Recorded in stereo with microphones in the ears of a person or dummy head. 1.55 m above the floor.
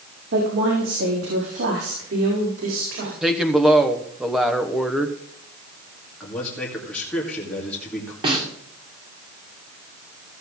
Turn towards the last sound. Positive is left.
turn(degrees=-30)  # may be behind; listen again after turning